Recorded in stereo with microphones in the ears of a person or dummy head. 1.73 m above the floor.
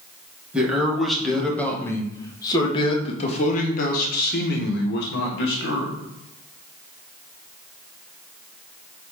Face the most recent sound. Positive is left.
turn(degrees=75)  # may be behind; listen again after turning